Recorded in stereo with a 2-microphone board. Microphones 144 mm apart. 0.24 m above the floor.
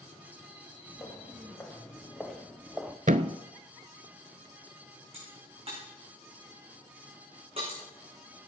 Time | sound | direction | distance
0.9 | footsteps | 15° left (ahead or behind) | 3 m
3.1 | a thud | 65° right (ahead or behind) | 0.6 m
5.1 | a crack | 40° right (ahead or behind) | 6.5 m